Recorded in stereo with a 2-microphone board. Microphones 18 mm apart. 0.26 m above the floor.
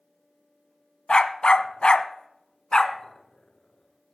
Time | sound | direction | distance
1.1 | a dog barking | 50° left (ahead or behind) | 0.8 m